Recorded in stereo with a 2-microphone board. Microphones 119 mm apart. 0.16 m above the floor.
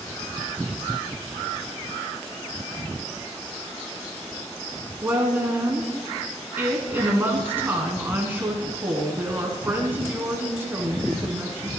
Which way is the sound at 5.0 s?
20° right (ahead or behind).